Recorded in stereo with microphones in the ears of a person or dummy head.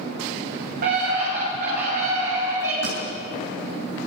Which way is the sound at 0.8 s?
55° right (ahead or behind).